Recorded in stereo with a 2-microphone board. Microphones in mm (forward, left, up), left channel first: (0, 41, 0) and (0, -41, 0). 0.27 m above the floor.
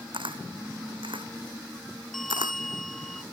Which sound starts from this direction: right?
A camera shutter, at 0.1 s.